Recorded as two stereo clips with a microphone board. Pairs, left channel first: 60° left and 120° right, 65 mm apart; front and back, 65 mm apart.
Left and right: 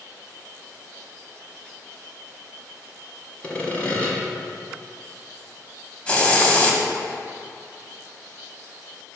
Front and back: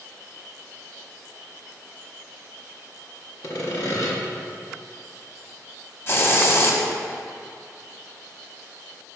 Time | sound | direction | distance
3.4 | sawing | straight ahead | 1.2 m
6.1 | a hiss | straight ahead | 0.9 m